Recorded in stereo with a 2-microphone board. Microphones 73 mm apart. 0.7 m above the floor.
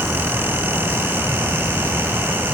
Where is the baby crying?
No baby crying in this recording.